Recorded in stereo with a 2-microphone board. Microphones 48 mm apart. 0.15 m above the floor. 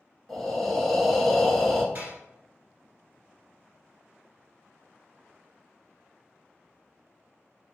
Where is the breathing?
5° left (ahead or behind), 0.8 m.